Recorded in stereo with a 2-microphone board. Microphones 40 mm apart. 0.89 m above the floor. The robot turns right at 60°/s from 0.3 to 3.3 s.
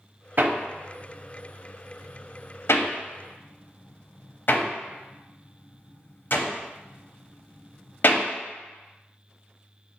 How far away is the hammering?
About 0.6 m.